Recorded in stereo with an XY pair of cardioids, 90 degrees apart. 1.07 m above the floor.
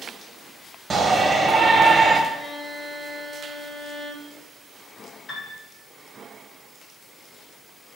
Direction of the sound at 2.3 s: 25° left.